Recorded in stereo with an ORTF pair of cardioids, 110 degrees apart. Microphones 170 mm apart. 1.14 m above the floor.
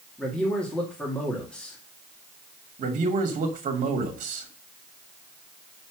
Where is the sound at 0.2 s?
5° left, 2.5 m.